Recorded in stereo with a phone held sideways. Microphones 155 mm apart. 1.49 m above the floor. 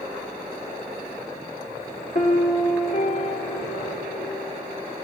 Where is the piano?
55° left (ahead or behind), 1.9 m.